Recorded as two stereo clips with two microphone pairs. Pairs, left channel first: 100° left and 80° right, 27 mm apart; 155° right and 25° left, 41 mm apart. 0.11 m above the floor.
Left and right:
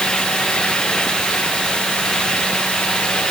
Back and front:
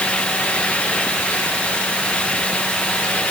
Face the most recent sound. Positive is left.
No sound to turn to.